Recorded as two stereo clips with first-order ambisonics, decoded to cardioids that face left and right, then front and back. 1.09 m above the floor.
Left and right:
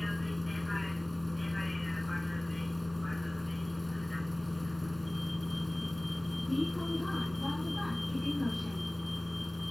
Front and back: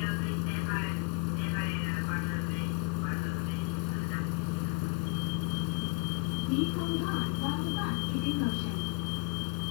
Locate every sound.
0.0 s a vehicle: 5° left